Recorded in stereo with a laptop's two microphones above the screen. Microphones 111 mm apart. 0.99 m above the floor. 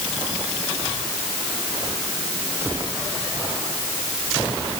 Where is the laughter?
No laughter in this recording.